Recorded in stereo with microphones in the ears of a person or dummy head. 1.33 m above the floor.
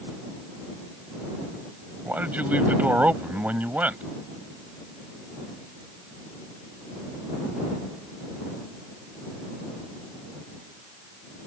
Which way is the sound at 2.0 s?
5° right (ahead or behind).